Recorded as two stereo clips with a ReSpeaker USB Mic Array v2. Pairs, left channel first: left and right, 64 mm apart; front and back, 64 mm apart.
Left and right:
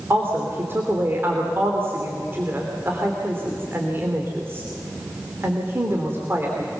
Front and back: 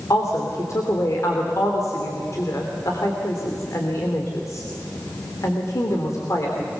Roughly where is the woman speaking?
Ahead right.